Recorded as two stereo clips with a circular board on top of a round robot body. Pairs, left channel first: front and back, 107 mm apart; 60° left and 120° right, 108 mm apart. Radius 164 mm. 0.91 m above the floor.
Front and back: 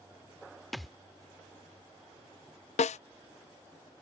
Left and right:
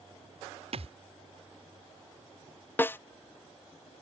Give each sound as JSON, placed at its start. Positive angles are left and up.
{"t": 0.7, "sound": "a thud", "azimuth_deg": -90}
{"t": 2.8, "sound": "a snare drum", "azimuth_deg": -10}